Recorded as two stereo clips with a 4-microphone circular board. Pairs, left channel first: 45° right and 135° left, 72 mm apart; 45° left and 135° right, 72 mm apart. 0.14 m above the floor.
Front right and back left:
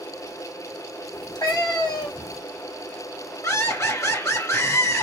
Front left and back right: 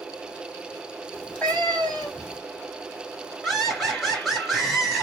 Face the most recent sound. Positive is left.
turn(degrees=-35)